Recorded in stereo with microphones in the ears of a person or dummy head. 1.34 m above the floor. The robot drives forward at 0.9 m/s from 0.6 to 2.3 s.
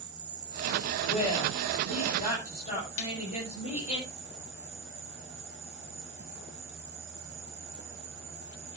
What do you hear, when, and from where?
0.0 s an insect: 25° right (ahead or behind), 3 m; by 8.8 s 15° right (ahead or behind), 4.5 m
1.1 s a woman speaking: 45° left (ahead or behind), 6.5 m; by 4.0 s 40° left (ahead or behind), 7.5 m
3.0 s a snare drum: 75° left (ahead or behind), 2.5 m